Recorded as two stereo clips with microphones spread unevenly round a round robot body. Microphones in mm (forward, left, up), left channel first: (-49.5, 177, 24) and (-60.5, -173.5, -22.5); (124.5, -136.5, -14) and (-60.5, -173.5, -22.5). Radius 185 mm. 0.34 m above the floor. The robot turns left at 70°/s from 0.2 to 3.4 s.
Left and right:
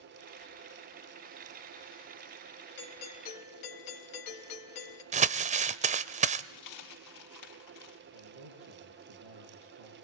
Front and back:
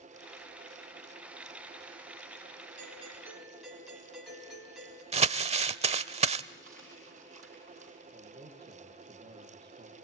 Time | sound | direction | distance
2.8 | a doorbell | 145° left | 3 m
5.1 | crumpling | 140° right | 0.6 m
6.5 | a dropped coin | 120° left | 4 m
8.1 | a man speaking | 115° right | 6.5 m